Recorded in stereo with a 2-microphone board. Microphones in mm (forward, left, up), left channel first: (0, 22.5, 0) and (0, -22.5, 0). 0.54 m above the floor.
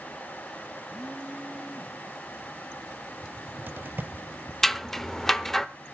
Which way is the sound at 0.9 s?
20° right (ahead or behind).